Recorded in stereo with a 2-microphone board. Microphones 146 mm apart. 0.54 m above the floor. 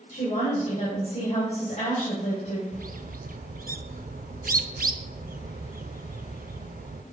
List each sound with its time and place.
0.1 s a woman speaking: 55° left (ahead or behind), 3 m
2.7 s a bird: 85° right, 0.6 m